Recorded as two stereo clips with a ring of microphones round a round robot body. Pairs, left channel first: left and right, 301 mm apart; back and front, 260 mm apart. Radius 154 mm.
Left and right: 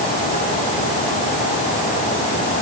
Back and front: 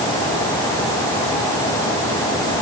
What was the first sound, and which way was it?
Only background noise.